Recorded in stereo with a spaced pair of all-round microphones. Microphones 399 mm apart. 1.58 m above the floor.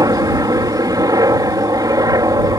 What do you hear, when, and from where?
0.0 s a helicopter: 10° right (ahead or behind)